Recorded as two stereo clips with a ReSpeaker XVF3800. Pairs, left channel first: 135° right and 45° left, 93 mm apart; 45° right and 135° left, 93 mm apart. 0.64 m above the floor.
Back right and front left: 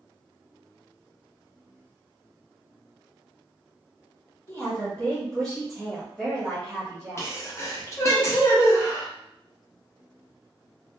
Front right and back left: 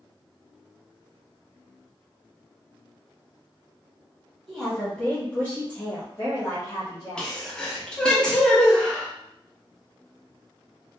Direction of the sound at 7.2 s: 115° right.